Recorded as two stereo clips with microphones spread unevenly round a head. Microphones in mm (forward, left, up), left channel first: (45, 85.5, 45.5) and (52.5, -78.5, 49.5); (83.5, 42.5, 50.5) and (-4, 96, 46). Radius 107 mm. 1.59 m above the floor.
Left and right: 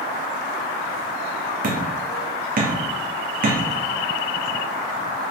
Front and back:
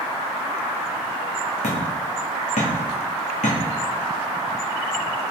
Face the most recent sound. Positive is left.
turn(degrees=-55)